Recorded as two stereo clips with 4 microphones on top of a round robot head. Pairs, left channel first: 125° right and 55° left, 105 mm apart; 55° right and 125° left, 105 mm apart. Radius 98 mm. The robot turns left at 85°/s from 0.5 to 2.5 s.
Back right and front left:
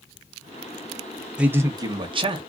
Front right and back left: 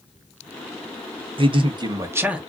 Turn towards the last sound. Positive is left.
turn(degrees=35)